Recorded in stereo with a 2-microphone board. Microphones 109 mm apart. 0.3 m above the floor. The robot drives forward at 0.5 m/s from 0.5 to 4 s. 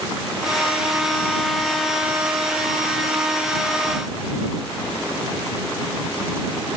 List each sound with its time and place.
Only background noise.